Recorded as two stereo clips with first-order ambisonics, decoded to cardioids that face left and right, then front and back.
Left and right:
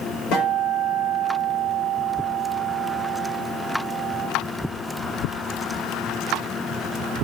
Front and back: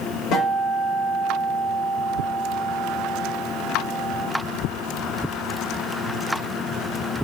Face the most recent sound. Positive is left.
turn(degrees=50)